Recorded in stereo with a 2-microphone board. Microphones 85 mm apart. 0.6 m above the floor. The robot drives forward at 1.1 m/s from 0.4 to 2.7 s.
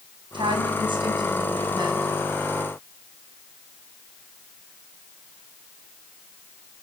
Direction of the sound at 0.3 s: 80° right.